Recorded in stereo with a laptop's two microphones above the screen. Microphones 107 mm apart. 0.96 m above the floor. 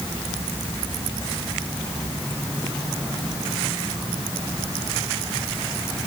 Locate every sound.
Only background noise.